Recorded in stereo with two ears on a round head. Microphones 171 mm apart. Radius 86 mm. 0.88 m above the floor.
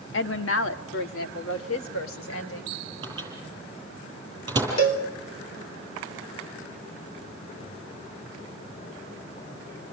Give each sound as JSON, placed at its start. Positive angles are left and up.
{"t": 0.1, "sound": "a woman speaking", "side_deg": 65, "distance_m": 1.4}
{"t": 3.0, "sound": "a microwave", "side_deg": -20, "distance_m": 8.5}
{"t": 4.8, "sound": "a cowbell", "side_deg": 70, "distance_m": 3.5}